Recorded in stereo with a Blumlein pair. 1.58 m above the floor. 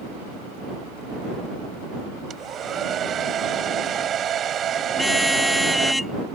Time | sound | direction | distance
2.3 | a hair dryer | 25° right | ?
4.9 | a car horn | 5° left | ?